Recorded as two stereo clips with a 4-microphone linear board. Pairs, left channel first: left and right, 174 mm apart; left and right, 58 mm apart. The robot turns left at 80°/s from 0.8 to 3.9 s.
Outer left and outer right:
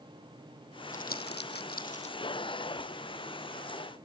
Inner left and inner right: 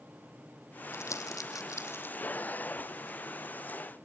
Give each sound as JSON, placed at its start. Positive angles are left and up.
{"t": 0.9, "sound": "crumpling", "side_deg": 50, "distance_m": 0.9}